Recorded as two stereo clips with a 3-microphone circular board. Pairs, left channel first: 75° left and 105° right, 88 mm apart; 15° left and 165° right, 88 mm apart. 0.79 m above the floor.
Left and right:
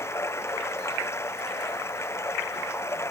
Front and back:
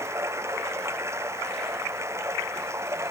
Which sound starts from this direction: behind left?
Running water, at 0.0 s.